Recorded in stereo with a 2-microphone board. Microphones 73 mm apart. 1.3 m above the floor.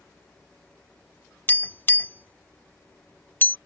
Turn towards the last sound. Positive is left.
turn(degrees=30)  # may be behind; listen again after turning